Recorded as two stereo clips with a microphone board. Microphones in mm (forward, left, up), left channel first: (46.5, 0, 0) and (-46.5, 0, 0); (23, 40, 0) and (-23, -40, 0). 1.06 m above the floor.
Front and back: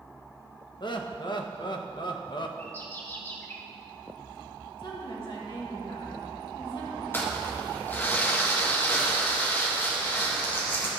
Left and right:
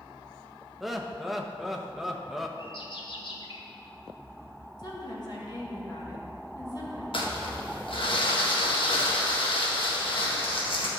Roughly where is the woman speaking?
Ahead.